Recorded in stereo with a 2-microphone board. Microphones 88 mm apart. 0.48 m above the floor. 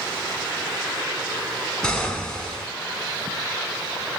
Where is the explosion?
10° left (ahead or behind), 1.0 m.